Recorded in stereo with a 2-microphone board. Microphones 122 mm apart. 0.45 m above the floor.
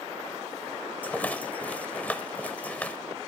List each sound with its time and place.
1.0 s a rattle: 10° left (ahead or behind), 0.7 m